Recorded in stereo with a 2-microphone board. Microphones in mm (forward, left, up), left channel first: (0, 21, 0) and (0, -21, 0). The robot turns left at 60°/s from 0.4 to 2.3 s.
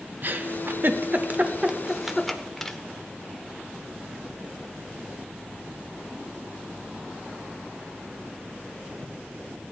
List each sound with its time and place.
0.2 s a giggle: 50° right (ahead or behind), 0.9 m; by 2.8 s 5° left (ahead or behind), 0.9 m